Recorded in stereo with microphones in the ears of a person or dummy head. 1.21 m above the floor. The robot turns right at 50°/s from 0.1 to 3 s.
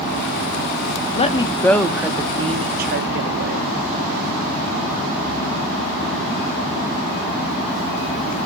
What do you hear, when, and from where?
1.1 s a woman speaking: 145° left, 0.8 m; by 3.7 s 120° right, 0.8 m